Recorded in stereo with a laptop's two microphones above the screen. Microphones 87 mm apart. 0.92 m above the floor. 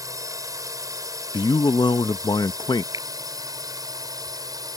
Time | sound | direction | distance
0.0 | a drone | 40° right (ahead or behind) | ?
1.3 | a man speaking | 55° left (ahead or behind) | ?
2.9 | a finger snap | 45° right (ahead or behind) | ?